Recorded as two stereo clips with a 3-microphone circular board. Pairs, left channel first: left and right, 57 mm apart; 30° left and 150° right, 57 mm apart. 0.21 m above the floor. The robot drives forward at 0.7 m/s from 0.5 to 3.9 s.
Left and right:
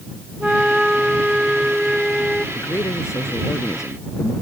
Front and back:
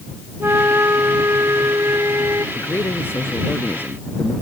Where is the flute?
165° right; by 2.5 s 175° right.